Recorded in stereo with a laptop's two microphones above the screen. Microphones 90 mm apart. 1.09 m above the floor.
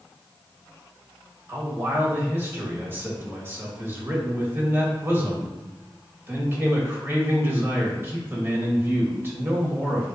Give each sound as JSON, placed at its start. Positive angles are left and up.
{"t": 1.5, "sound": "a man speaking", "side_deg": -25, "distance_m": 1.8}